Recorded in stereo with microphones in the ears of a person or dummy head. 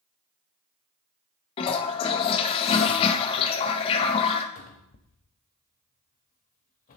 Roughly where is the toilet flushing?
Left.